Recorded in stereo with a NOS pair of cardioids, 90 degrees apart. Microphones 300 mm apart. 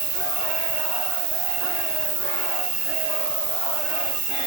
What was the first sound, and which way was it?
An insect, 70° right.